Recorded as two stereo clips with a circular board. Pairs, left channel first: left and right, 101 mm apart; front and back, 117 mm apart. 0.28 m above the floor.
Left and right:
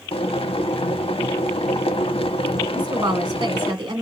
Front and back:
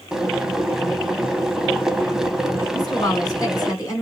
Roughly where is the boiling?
Left.